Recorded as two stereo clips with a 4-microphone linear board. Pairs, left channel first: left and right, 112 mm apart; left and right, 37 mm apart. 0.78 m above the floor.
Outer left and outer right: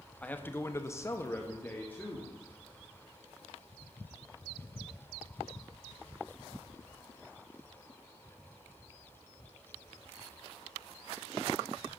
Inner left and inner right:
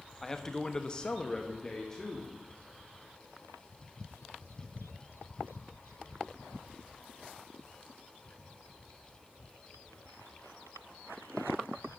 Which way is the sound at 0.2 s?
15° left (ahead or behind).